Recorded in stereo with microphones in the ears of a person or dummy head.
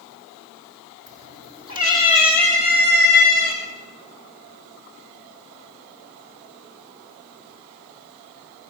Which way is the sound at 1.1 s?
25° right (ahead or behind).